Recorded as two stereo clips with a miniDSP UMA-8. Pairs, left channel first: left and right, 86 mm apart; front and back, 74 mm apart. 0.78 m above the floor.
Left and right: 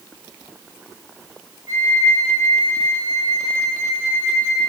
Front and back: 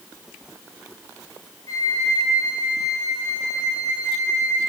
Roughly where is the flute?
Ahead right.